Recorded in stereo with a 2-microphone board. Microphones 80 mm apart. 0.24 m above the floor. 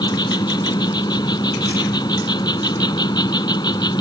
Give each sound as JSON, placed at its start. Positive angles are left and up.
{"t": 0.0, "sound": "an insect", "side_deg": 60}